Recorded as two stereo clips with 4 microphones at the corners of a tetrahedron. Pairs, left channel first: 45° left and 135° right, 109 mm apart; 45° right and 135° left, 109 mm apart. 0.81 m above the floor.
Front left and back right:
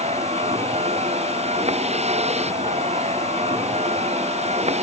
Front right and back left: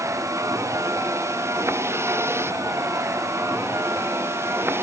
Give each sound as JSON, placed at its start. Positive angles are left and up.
{"t": 0.0, "sound": "a vehicle", "azimuth_deg": -160}